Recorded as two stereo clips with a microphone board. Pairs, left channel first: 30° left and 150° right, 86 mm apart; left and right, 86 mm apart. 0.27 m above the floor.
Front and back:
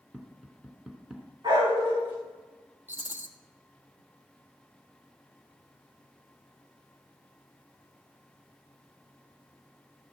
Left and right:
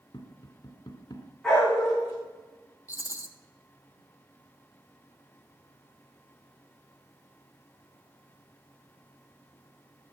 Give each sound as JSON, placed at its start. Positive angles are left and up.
{"t": 0.1, "sound": "tapping", "azimuth_deg": 125, "distance_m": 2.0}
{"t": 1.4, "sound": "a dog barking", "azimuth_deg": 180, "distance_m": 7.0}
{"t": 2.9, "sound": "a rattle", "azimuth_deg": 145, "distance_m": 1.3}